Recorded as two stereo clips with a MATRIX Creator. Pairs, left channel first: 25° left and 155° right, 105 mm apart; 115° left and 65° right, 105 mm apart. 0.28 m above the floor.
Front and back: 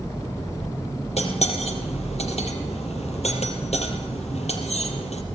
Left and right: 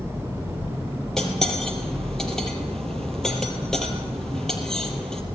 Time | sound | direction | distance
1.2 | cutlery clinking | 25° left | 4 m